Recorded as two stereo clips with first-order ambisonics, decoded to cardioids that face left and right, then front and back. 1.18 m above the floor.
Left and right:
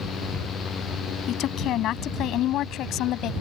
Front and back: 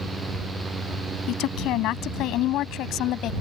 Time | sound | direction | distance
1.3 | a woman speaking | 40° left | ?